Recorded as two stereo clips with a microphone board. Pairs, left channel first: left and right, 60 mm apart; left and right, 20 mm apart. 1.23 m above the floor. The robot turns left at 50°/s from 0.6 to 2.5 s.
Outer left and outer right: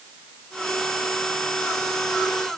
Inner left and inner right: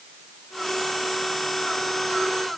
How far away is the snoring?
I don't hear snoring.